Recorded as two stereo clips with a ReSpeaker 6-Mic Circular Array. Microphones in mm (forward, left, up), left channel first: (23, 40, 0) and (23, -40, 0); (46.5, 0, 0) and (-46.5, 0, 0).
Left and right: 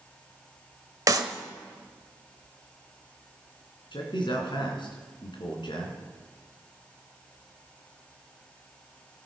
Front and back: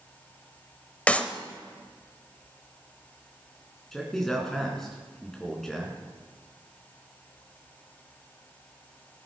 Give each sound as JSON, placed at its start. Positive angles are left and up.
{"t": 1.1, "sound": "a clap", "azimuth_deg": -70, "distance_m": 0.9}
{"t": 3.9, "sound": "a man speaking", "azimuth_deg": 85, "distance_m": 3.5}